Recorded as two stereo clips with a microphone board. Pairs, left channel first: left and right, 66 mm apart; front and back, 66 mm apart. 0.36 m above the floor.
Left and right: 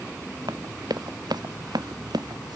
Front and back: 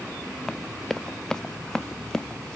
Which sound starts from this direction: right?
Running footsteps, at 0.5 s.